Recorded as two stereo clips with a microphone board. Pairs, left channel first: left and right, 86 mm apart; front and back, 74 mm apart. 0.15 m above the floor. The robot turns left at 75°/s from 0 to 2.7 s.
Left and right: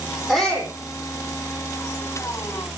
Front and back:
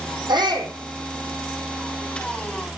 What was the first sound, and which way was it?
A shout, straight behind.